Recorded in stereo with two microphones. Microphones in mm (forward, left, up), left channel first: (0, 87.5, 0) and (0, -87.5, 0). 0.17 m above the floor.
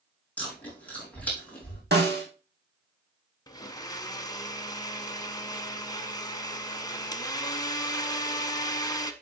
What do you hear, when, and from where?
0.4 s chewing: 10° left (ahead or behind), 4.5 m
1.9 s a snare drum: 70° right (ahead or behind), 2.5 m
3.5 s a blender: 20° left (ahead or behind), 0.9 m